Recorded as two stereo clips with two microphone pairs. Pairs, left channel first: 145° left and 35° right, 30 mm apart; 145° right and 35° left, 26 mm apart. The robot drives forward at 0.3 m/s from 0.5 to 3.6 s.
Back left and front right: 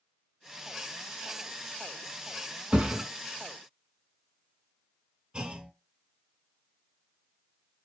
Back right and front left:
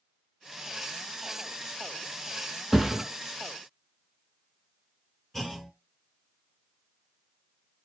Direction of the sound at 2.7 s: 40° right.